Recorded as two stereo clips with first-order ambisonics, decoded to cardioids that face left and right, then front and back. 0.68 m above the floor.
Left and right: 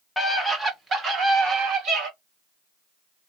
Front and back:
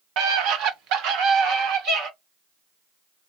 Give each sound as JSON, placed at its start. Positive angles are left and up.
{"t": 0.2, "sound": "a scream", "azimuth_deg": 175, "distance_m": 0.8}